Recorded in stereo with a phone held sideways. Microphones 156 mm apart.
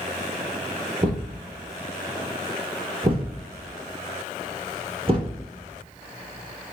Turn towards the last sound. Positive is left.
turn(degrees=-35)  # may be behind; listen again after turning